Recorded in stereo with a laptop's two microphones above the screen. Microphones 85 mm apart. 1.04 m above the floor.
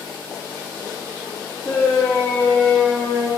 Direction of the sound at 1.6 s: 25° right (ahead or behind).